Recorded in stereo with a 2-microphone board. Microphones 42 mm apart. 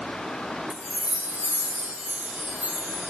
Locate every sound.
0.7 s a chime: 40° right (ahead or behind), 0.6 m